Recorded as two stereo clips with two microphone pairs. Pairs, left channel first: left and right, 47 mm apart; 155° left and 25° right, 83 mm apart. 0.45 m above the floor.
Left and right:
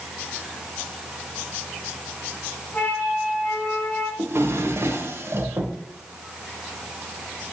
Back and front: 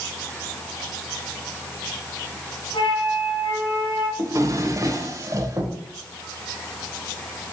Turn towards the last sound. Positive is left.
turn(degrees=-70)